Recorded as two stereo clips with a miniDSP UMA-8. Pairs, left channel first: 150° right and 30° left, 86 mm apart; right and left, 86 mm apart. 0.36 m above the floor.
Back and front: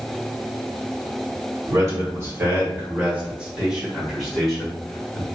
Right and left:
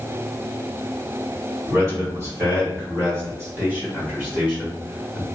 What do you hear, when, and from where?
1.7 s a man speaking: 50° left, 1.9 m; by 5.2 s 160° left, 1.6 m